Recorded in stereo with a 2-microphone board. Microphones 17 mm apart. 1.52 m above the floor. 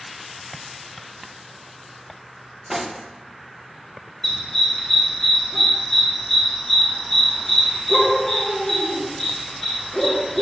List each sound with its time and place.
2.7 s cutlery clinking: 15° right (ahead or behind), 0.6 m
4.2 s a dog barking: 30° left (ahead or behind), 2.5 m